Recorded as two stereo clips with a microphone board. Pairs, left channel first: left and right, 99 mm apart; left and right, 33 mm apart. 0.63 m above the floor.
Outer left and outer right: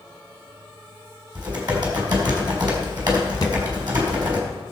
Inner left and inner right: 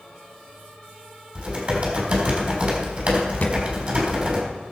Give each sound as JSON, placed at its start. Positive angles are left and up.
{"t": 1.4, "sound": "typing on a keyboard", "side_deg": -45, "distance_m": 4.0}
{"t": 3.4, "sound": "a thud", "side_deg": 45, "distance_m": 1.8}